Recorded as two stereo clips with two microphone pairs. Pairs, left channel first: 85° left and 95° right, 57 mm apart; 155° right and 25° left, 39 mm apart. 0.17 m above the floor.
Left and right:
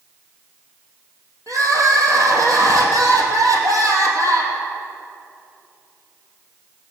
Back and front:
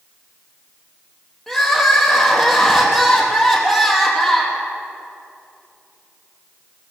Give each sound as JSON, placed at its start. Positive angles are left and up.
{"t": 1.5, "sound": "crying", "azimuth_deg": -75, "distance_m": 3.0}